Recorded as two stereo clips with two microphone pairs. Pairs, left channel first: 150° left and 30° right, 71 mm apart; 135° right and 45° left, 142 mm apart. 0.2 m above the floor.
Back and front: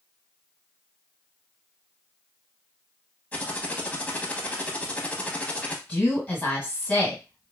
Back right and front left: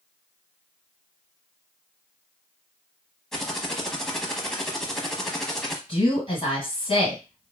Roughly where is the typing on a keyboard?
Behind left.